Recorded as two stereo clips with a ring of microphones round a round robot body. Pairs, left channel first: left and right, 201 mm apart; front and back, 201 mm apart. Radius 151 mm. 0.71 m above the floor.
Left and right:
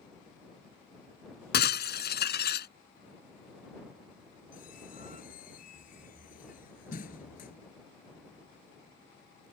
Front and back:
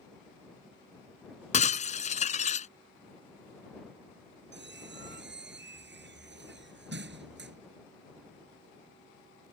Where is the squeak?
150° left.